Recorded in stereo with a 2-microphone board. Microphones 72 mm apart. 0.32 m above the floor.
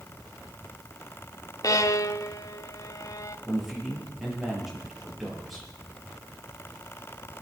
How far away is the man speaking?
About 5.5 m.